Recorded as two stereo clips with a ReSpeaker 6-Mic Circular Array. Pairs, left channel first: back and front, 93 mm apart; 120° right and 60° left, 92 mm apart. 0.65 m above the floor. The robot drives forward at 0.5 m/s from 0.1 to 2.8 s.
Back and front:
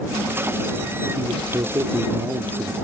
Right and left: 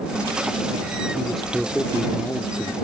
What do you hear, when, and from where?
1.1 s a man speaking: 25° right; by 2.7 s 60° right